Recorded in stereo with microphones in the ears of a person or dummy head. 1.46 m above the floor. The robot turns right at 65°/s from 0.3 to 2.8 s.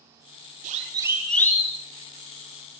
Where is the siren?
45° right (ahead or behind), 5 m; by 1.8 s 35° left (ahead or behind), 4.5 m.